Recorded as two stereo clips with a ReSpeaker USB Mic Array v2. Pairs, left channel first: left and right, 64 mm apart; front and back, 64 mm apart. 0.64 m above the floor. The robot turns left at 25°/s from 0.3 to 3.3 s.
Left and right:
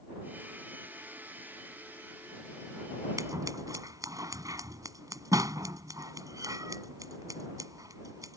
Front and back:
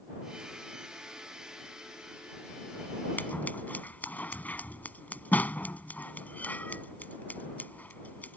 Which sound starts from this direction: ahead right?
Scissors, at 3.2 s.